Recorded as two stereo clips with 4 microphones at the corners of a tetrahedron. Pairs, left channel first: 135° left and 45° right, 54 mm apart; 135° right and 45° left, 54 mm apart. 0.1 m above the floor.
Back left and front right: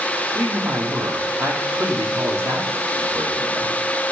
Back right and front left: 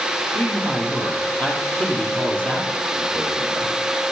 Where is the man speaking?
70° right, 3 m.